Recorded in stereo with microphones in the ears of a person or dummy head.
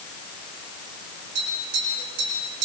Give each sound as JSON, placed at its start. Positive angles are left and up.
{"t": 1.4, "sound": "tapping", "side_deg": -70, "distance_m": 7.5}